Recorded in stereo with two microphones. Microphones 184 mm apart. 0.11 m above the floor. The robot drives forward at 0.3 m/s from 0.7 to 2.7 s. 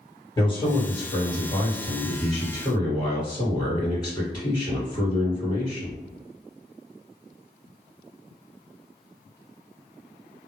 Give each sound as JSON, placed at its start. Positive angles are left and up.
{"t": 0.4, "sound": "a man speaking", "side_deg": 25, "distance_m": 1.7}